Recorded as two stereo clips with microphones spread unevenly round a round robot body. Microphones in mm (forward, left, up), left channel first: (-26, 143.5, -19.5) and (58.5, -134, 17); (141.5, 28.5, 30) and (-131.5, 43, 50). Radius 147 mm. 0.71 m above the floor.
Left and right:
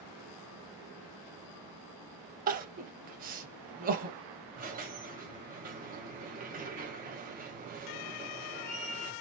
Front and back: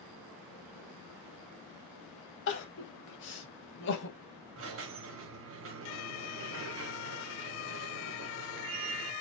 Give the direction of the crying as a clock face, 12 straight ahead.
1 o'clock.